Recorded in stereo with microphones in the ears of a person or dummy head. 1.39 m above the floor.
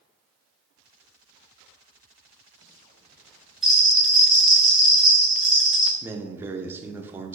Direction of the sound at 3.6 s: 5° right (ahead or behind).